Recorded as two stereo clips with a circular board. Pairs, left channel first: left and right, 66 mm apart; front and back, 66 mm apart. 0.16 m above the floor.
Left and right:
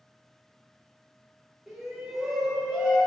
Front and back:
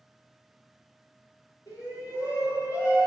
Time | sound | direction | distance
1.7 | a shout | 5° right | 4.5 m